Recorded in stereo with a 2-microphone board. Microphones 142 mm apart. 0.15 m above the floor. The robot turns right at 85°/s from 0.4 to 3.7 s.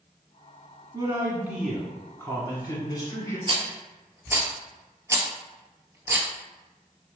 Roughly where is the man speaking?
Right.